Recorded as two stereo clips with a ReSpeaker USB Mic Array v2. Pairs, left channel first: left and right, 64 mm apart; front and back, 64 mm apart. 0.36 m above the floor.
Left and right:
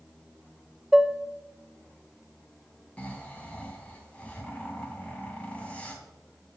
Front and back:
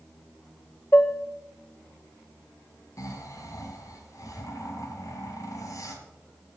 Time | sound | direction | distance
0.9 | dishes clattering | 10° right | 0.6 m
3.0 | snoring | 20° left | 2 m